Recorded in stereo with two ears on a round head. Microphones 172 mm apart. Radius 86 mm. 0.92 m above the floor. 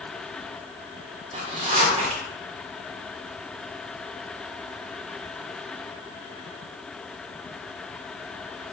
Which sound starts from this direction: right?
A zipper, at 1.3 s.